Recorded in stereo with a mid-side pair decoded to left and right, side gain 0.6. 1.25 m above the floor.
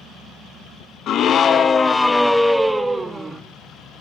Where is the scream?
55° left, 1.2 m; by 3.4 s 15° right, 1.9 m.